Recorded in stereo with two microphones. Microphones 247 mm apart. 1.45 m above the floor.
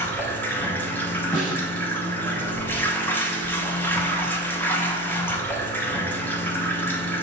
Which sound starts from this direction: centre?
Running water, at 0.0 s.